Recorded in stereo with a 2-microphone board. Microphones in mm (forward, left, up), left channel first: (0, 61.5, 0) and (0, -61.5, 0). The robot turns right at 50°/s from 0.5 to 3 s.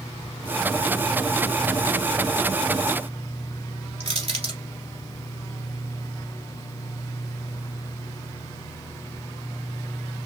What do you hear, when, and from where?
4.0 s crushing: 55° right (ahead or behind), 1.9 m